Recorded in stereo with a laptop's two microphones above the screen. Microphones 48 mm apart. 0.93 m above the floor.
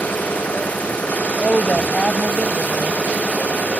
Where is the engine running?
30° left (ahead or behind).